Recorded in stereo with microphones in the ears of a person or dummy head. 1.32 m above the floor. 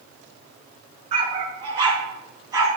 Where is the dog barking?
30° right (ahead or behind), 4.5 m; by 2.7 s 15° right (ahead or behind), 5 m.